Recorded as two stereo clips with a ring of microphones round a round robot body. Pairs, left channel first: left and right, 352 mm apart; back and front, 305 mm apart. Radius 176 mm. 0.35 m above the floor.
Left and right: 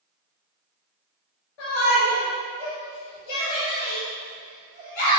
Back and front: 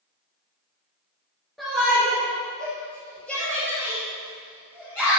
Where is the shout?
90° left, 5 m; by 5.2 s 95° left, 7.5 m.